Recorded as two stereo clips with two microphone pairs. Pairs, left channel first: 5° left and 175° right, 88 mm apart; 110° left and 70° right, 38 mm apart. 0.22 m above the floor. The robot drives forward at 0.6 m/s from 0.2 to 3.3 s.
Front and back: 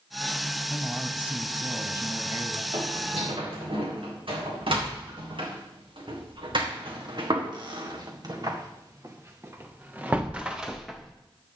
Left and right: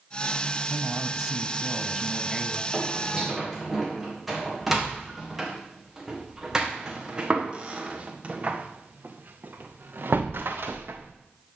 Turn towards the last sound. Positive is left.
turn(degrees=-80)